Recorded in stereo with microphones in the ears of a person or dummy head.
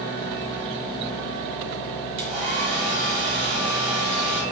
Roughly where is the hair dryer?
Right.